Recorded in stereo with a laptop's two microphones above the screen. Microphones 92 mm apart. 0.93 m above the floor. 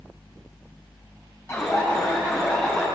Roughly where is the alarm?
Left.